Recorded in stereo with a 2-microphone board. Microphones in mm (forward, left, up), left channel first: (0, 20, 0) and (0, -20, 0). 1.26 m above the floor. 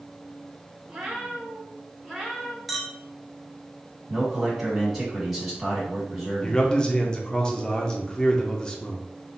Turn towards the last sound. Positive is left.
turn(degrees=20)  # may be behind; listen again after turning